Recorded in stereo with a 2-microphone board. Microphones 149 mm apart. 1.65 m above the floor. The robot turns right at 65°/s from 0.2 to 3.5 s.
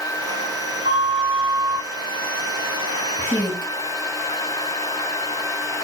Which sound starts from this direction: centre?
A woman speaking, at 3.2 s.